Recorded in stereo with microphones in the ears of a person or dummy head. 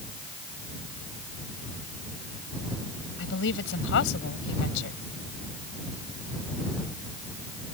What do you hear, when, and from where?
3.2 s a woman speaking: 70° left (ahead or behind)